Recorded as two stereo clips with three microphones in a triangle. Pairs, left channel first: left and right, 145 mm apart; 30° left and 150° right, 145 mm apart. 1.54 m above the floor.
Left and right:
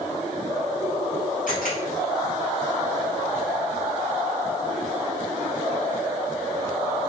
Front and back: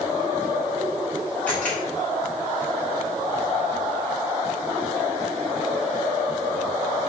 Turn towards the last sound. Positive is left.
turn(degrees=110)